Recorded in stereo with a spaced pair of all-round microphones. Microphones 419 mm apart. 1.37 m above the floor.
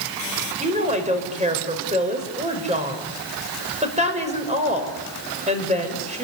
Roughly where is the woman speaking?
Centre.